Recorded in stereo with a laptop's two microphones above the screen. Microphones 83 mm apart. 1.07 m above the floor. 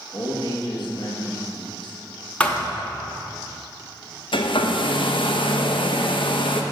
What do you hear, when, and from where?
0.1 s a man speaking: 60° left (ahead or behind), 1.2 m
2.4 s a thud: 15° left (ahead or behind), 0.7 m
4.3 s a hair dryer: 75° left (ahead or behind), 0.7 m